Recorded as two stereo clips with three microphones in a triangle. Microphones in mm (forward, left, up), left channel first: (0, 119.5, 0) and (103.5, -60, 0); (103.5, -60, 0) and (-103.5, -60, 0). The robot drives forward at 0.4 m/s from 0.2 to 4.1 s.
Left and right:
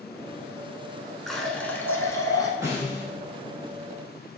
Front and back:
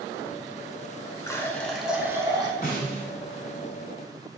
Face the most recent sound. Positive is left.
turn(degrees=25)